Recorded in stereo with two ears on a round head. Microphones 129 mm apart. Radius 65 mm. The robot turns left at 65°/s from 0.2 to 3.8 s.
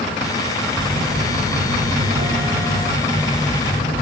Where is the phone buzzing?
15° right, 8.5 m; by 4.0 s 145° left, 8.5 m.